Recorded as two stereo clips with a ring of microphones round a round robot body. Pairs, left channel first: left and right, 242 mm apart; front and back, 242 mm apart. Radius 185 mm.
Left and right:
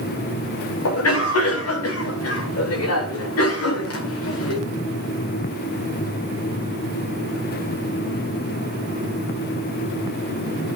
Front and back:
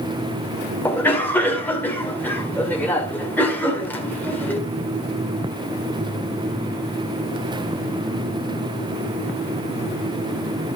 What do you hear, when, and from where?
0.8 s a cough: 85° left, 2 m